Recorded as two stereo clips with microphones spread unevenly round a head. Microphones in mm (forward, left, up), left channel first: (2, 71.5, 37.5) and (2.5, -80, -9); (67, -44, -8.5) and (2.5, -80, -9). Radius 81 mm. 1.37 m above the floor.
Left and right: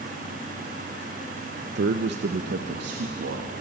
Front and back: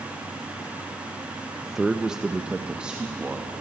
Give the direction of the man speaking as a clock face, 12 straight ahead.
2 o'clock.